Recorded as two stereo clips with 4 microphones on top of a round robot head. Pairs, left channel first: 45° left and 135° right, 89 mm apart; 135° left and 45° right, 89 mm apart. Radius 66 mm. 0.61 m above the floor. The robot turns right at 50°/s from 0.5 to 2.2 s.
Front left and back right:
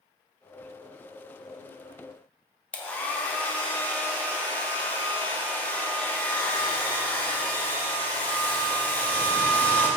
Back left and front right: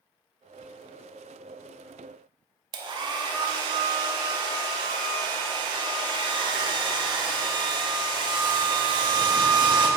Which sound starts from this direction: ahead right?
A hair dryer, at 2.7 s.